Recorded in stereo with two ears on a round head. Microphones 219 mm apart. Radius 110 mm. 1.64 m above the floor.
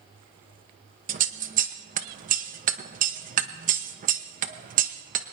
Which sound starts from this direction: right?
Scissors, at 1.1 s.